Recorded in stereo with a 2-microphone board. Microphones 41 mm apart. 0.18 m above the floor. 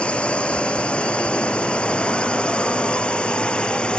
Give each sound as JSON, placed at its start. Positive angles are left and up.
{"t": 0.0, "sound": "a drone", "side_deg": 30}